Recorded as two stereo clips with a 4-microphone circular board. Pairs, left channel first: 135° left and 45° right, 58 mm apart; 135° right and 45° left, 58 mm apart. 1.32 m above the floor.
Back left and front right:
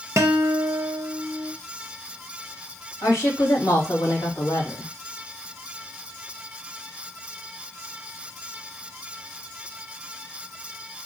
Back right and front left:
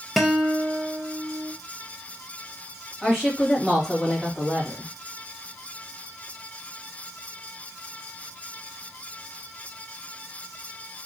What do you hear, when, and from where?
0.2 s a guitar: 40° right, 0.5 m
3.0 s a woman speaking: 135° left, 2 m